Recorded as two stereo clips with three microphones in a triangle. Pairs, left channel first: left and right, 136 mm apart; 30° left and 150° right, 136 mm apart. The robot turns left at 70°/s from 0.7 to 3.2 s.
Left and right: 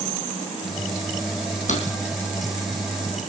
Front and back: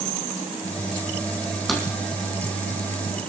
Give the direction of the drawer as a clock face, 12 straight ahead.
8 o'clock.